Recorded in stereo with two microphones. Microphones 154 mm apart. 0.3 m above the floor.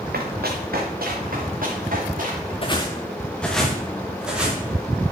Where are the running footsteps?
80° right, 1.7 m; by 2.5 s 60° right (ahead or behind), 4 m.